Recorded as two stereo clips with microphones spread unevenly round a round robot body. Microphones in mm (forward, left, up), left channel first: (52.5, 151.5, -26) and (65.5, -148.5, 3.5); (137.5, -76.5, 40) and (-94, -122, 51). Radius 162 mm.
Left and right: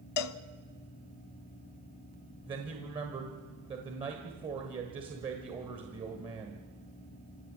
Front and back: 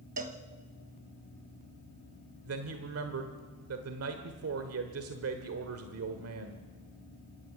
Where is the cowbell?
130° left, 0.5 m.